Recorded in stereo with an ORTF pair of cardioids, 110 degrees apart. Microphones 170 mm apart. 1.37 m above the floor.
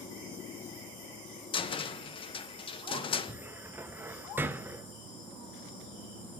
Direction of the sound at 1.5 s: 30° left.